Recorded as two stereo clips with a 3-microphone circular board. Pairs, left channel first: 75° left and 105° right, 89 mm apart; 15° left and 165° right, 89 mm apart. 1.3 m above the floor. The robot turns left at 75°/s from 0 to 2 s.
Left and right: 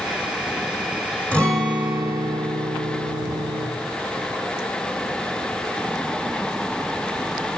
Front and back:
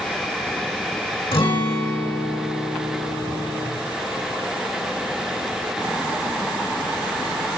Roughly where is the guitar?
Ahead.